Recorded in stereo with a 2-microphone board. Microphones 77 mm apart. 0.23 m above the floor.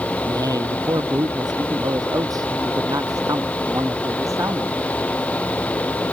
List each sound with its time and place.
0.2 s a man speaking: 60° right (ahead or behind); by 4.8 s 40° right (ahead or behind)